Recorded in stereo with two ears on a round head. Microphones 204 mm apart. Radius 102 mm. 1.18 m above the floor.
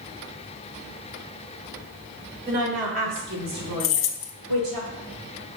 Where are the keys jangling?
60° left (ahead or behind), 0.6 m.